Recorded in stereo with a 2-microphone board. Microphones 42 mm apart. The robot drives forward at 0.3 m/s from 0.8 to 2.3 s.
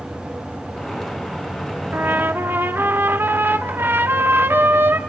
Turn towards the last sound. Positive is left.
turn(degrees=-65)  # may be behind; listen again after turning